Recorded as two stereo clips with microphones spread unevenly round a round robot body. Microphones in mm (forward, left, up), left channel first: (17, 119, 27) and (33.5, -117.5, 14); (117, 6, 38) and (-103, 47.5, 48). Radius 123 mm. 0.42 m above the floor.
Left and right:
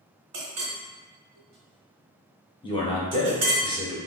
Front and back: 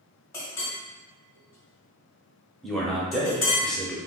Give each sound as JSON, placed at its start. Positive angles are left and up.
{"t": 0.3, "sound": "a clink", "azimuth_deg": -90, "distance_m": 1.5}
{"t": 2.6, "sound": "a man speaking", "azimuth_deg": 70, "distance_m": 0.8}